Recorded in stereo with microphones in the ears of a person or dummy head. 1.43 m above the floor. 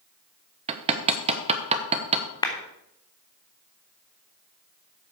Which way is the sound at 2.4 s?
20° left (ahead or behind).